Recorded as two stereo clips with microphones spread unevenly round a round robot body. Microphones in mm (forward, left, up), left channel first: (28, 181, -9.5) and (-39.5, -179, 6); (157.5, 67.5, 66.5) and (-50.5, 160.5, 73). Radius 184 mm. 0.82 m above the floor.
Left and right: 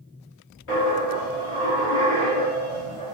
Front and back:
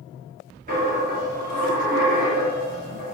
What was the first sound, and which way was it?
A dropped coin, 110° left.